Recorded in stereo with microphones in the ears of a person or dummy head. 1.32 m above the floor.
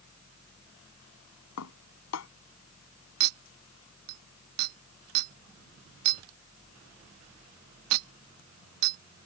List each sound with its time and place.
1.6 s dishes clattering: 80° left
3.2 s a clink: 70° right (ahead or behind)